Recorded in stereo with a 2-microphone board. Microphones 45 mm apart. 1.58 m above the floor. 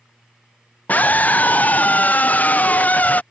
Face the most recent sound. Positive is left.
turn(degrees=40)  # may be behind; listen again after turning